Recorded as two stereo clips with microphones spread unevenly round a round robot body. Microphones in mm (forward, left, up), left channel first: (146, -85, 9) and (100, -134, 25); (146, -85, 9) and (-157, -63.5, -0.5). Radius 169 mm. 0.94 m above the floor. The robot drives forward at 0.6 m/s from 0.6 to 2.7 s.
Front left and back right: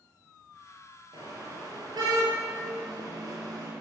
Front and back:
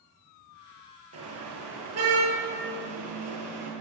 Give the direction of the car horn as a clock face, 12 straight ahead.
5 o'clock.